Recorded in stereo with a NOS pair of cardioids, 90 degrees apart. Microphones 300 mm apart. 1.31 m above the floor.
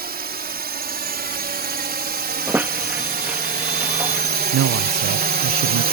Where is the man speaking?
60° right.